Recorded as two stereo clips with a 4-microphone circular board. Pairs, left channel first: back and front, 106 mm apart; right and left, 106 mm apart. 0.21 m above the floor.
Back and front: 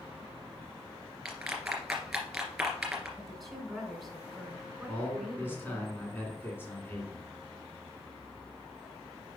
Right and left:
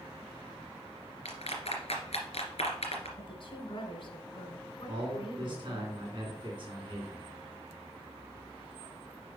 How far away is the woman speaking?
About 1.8 m.